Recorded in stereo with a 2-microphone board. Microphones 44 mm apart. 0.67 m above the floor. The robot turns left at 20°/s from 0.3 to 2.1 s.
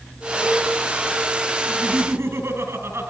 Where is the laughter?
60° right (ahead or behind), 5.5 m; by 3.1 s 65° right (ahead or behind), 5.5 m.